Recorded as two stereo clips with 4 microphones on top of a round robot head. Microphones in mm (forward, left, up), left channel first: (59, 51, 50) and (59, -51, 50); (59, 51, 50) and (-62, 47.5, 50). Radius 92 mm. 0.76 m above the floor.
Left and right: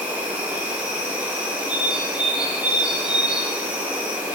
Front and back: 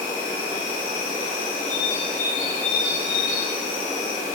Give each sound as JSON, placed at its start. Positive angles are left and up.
{"t": 0.0, "sound": "an insect", "azimuth_deg": -15, "distance_m": 1.7}
{"t": 1.7, "sound": "a bird", "azimuth_deg": -10, "distance_m": 0.5}